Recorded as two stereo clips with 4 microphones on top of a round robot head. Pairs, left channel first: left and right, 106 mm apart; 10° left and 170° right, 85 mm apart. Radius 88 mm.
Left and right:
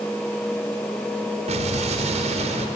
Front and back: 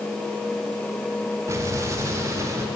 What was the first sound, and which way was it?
An explosion, 110° right.